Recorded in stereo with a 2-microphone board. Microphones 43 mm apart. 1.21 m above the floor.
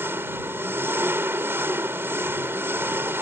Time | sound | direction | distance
0.0 | an engine running | 70° right (ahead or behind) | ?